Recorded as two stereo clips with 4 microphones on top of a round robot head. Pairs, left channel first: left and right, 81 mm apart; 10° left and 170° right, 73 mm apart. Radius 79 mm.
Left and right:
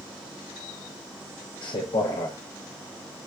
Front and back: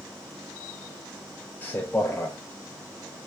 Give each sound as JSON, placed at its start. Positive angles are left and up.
{"t": 1.6, "sound": "a man speaking", "azimuth_deg": 75, "distance_m": 0.9}